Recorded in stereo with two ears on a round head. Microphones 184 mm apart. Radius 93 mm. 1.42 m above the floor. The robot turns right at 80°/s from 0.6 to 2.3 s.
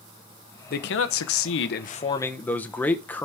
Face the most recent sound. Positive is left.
turn(degrees=170)